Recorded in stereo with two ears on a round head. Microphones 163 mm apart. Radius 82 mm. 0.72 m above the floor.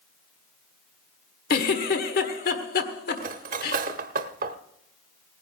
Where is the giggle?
60° left (ahead or behind), 1.4 m.